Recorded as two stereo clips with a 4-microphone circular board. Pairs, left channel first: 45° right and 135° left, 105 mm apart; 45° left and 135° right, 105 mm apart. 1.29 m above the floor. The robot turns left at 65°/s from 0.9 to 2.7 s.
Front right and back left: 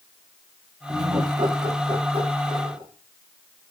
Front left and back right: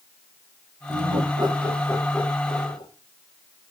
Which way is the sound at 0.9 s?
150° right.